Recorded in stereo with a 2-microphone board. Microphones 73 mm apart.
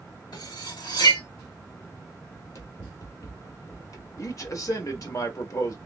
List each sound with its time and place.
0.3 s cutlery clinking: 75° left (ahead or behind), 2 m
2.3 s running footsteps: 45° left (ahead or behind), 1.3 m; by 5.2 s 40° left (ahead or behind), 1.2 m
4.2 s a man speaking: 50° left (ahead or behind), 1.4 m